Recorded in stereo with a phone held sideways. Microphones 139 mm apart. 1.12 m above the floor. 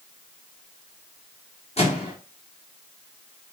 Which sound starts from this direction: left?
A microwave, at 1.8 s.